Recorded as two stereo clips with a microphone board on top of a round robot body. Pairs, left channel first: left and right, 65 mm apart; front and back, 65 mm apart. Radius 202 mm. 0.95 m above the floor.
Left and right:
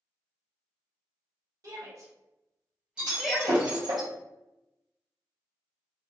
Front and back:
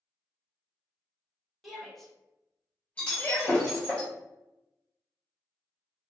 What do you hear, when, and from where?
1.6 s a shout: 90° right, 1.4 m; by 3.7 s 25° left, 1.0 m
3.0 s breaking glass: 75° right, 0.7 m